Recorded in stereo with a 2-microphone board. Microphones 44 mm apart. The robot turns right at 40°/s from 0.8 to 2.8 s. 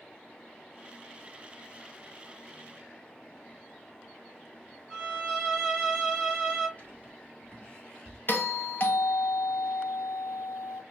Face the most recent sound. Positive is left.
turn(degrees=50)  # may be behind; listen again after turning